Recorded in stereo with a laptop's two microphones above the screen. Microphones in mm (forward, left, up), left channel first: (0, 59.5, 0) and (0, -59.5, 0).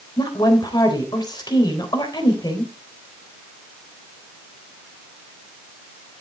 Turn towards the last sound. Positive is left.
turn(degrees=35)  # may be behind; listen again after turning